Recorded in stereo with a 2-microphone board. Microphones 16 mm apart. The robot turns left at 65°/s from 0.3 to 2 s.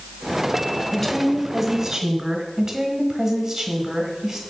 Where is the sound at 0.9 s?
40° left, 1.8 m; by 2.5 s 30° right, 1.8 m.